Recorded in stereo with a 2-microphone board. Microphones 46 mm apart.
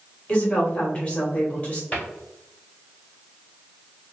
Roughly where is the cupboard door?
Left.